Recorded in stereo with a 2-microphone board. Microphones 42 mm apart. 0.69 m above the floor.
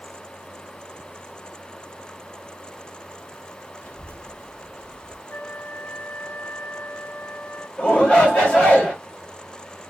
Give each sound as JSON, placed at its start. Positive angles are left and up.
{"t": 3.8, "sound": "a child speaking", "side_deg": 35, "distance_m": 0.7}
{"t": 5.3, "sound": "a flute", "side_deg": 55, "distance_m": 0.9}
{"t": 7.8, "sound": "a shout", "side_deg": 25, "distance_m": 1.3}